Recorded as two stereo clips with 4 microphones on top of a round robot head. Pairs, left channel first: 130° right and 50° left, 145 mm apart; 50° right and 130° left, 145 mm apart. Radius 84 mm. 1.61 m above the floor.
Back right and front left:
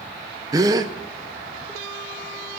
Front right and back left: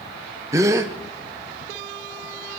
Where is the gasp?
85° left, 0.5 m.